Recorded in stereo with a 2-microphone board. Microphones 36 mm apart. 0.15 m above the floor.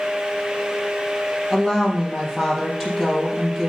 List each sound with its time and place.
1.5 s a woman speaking: centre (ahead or behind), 4.5 m